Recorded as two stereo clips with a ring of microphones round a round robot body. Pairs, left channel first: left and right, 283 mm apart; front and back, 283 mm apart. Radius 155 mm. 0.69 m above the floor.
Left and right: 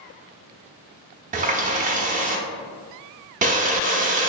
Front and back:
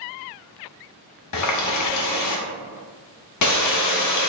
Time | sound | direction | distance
1.3 | a running tap | 25° right | 0.7 m